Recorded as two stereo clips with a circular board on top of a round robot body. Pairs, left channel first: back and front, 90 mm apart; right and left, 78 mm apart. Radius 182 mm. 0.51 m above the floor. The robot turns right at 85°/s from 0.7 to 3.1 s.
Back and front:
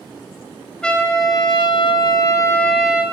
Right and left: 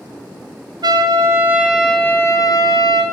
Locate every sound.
0.8 s a trumpet: 100° left, 1.4 m; by 3.0 s 75° right, 1.4 m